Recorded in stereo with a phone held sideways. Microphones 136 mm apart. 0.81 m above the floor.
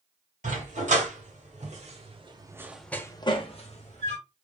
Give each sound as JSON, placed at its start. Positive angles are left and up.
{"t": 0.4, "sound": "a dog barking", "side_deg": -75, "distance_m": 1.8}